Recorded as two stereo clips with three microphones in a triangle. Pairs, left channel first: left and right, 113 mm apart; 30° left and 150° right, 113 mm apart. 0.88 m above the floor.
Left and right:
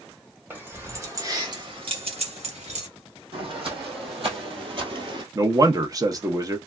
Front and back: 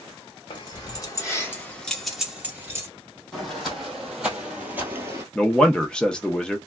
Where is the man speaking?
50° right, 0.7 m.